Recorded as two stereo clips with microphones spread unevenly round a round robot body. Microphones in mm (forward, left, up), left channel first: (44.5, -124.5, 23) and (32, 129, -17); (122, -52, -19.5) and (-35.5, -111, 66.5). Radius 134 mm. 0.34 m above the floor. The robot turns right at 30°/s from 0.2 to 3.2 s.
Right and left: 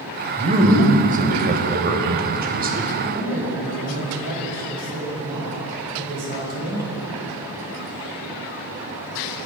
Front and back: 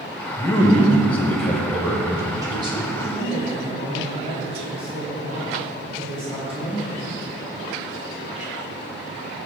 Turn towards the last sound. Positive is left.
turn(degrees=125)